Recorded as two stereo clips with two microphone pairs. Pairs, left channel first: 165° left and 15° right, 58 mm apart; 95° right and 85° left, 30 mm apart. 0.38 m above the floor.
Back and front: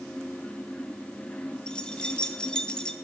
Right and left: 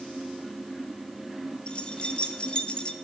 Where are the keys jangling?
130° right, 0.6 m.